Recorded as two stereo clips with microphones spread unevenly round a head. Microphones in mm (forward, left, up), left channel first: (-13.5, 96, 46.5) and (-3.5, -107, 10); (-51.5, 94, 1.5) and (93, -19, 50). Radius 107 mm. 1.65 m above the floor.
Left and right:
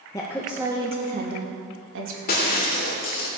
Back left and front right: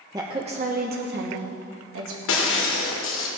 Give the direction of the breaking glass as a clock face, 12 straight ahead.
7 o'clock.